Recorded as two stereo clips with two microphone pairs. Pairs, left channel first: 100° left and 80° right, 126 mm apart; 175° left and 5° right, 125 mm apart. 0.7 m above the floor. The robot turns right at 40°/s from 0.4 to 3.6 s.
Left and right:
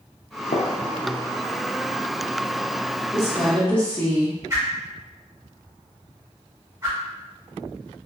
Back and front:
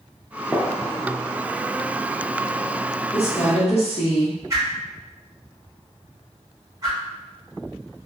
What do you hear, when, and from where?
0.5 s a gunshot: 100° left, 0.5 m; by 2.7 s 175° right, 0.5 m
3.1 s a woman speaking: 155° left, 1.1 m; by 4.4 s 175° left, 1.1 m
4.5 s a whoosh: 40° right, 1.3 m